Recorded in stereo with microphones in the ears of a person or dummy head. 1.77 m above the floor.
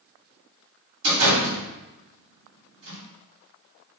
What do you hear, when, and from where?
1.0 s a door slam: 65° right (ahead or behind), 1.8 m